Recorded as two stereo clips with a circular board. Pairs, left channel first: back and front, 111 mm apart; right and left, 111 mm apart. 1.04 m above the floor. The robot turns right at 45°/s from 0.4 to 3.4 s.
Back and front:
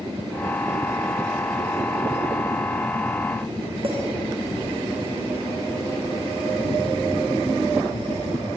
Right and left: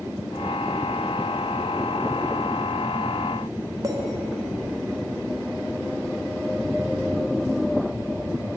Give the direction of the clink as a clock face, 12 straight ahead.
11 o'clock.